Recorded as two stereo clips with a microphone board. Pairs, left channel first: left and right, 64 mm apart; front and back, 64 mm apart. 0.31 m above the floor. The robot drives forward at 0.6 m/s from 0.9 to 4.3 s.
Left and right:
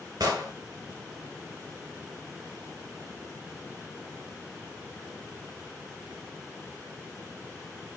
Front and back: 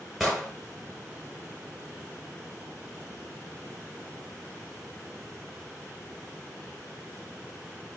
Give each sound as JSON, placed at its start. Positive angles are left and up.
{"t": 0.2, "sound": "an explosion", "azimuth_deg": -90, "distance_m": 1.7}